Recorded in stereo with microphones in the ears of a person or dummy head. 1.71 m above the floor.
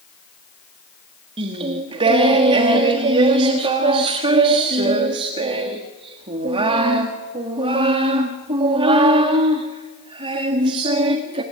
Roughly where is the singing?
Right.